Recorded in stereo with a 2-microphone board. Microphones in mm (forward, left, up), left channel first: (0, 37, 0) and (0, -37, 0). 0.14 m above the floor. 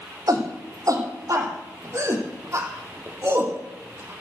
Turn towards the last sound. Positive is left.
turn(degrees=-30)  # may be behind; listen again after turning